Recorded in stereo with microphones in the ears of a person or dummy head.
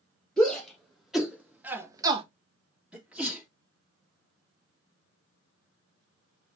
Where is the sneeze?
5° right (ahead or behind), 2 m.